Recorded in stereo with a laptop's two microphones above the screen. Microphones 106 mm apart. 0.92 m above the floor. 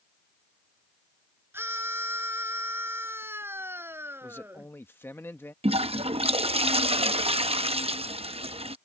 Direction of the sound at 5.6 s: 70° right (ahead or behind).